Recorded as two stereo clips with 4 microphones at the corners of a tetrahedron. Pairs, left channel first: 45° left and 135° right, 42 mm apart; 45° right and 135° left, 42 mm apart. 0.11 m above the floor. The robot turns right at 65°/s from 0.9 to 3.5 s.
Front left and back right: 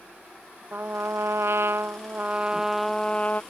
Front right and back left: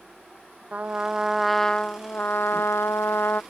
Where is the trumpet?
170° right; by 3.4 s 5° right.